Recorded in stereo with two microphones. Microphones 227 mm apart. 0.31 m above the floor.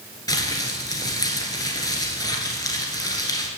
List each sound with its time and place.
0.3 s crumpling: 15° left (ahead or behind), 1.5 m